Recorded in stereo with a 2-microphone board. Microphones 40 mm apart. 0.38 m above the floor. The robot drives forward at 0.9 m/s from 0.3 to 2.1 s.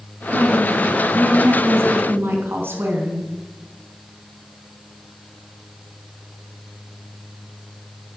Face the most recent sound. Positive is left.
turn(degrees=-70)  # may be behind; listen again after turning